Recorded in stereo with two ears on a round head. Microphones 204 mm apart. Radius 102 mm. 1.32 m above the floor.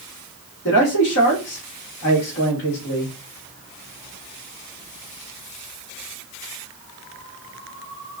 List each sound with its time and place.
0.7 s a man speaking: 65° left (ahead or behind), 2 m